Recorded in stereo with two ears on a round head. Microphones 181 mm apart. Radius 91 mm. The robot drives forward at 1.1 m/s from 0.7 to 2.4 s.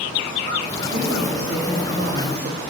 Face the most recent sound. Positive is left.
turn(degrees=-50)  # may be behind; listen again after turning